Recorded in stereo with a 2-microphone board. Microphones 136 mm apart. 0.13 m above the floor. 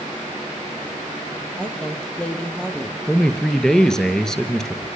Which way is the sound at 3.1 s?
5° left (ahead or behind).